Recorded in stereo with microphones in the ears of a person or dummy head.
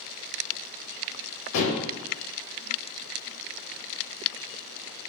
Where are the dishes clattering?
85° left, 1.0 m.